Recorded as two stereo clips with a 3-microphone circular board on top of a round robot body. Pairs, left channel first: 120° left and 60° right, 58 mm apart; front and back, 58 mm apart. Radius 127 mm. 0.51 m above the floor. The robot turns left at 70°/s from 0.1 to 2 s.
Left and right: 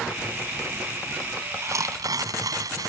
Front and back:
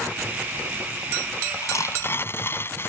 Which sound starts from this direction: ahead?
Tearing paper, at 1.6 s.